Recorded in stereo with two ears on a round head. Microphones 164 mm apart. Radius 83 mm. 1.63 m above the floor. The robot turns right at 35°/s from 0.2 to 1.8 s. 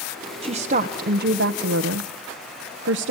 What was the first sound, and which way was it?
A woman speaking, 145° right.